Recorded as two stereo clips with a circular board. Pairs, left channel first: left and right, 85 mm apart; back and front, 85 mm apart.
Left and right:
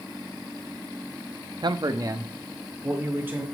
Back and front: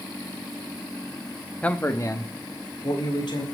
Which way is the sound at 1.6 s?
105° right.